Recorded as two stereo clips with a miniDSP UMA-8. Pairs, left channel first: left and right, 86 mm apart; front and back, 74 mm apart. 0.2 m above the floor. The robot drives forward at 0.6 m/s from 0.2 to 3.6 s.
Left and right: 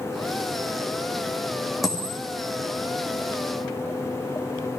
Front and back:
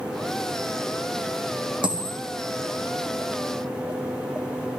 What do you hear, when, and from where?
1.8 s a dropped coin: straight behind, 2.5 m